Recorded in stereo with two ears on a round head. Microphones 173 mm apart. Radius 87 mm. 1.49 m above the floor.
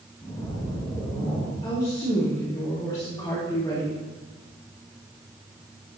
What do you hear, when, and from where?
0.2 s a splash: 15° left (ahead or behind), 1.9 m
1.6 s a woman speaking: 20° left (ahead or behind), 2.5 m